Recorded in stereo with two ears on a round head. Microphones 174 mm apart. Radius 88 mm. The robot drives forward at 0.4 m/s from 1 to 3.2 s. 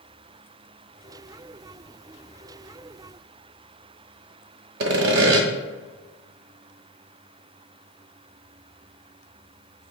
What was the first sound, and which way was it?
Sawing, 55° right (ahead or behind).